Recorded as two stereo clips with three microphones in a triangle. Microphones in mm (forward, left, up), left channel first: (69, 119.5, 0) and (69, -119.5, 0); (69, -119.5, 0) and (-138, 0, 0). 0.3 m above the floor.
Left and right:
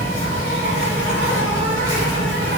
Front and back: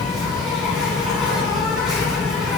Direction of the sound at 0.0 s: 120° right.